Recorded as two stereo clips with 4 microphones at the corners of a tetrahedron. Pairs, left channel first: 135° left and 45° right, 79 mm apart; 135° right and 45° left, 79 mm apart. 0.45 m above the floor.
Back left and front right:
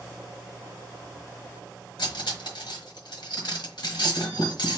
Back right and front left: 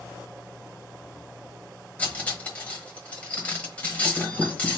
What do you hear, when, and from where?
2.0 s cutlery clinking: 150° left, 1.1 m